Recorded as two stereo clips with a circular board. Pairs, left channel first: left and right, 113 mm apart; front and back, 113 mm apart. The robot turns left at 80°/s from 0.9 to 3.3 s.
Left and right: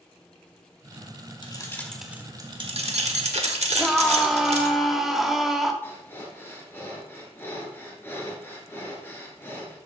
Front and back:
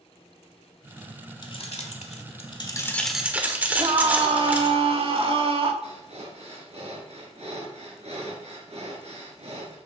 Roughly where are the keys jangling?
Ahead left.